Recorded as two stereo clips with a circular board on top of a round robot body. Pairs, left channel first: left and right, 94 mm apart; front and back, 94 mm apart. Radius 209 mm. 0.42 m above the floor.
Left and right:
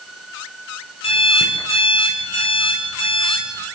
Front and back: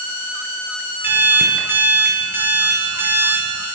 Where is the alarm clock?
110° left, 5.5 m.